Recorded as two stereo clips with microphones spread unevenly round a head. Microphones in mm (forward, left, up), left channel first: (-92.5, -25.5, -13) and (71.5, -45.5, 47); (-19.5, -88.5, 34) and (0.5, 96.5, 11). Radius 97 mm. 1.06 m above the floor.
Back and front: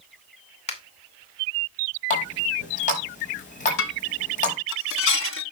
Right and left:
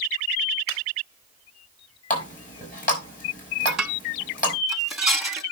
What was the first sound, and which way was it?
A finger snap, 135° right.